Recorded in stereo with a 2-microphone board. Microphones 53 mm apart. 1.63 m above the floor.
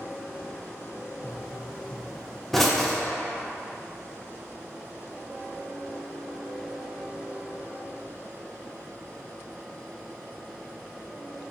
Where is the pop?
5° left (ahead or behind), 0.7 m.